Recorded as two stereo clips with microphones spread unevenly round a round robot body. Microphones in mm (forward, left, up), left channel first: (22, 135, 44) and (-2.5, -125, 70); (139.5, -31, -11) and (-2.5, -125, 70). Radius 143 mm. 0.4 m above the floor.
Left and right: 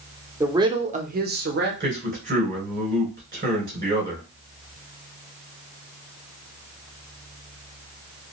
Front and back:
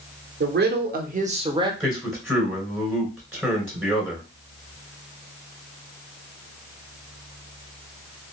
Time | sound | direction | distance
0.4 | a woman speaking | straight behind | 0.9 m
1.8 | a man speaking | 40° right | 2.5 m